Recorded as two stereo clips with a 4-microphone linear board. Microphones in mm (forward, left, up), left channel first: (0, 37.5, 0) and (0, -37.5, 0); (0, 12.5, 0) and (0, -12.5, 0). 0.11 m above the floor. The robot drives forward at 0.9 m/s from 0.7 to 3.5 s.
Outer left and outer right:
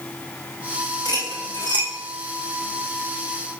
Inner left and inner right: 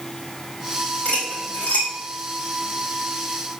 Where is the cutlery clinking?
65° left (ahead or behind), 4.5 m; by 1.9 s 75° left (ahead or behind), 4.5 m.